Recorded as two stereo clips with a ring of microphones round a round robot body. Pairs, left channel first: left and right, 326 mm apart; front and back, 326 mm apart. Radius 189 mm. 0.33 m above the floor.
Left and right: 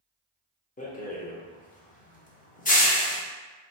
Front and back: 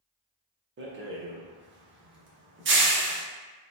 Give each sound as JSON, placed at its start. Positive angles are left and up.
{"t": 0.8, "sound": "a rattle", "azimuth_deg": 145, "distance_m": 0.8}